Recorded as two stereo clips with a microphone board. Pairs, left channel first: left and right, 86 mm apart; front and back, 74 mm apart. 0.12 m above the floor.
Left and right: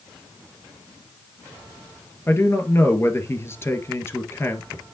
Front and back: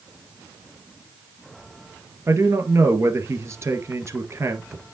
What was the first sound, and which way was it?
A man speaking, 140° left.